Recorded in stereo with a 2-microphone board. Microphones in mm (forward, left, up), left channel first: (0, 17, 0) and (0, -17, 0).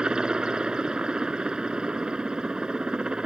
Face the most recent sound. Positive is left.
turn(degrees=-25)  # may be behind; listen again after turning